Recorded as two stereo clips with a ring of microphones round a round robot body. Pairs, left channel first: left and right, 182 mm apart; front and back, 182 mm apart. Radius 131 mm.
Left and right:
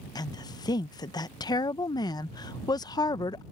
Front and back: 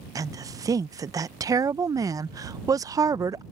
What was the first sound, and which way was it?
A woman speaking, 130° left.